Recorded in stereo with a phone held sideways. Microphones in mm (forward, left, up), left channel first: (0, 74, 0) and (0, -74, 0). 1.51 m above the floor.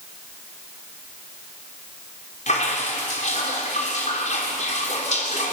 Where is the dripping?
55° left (ahead or behind), 4 m.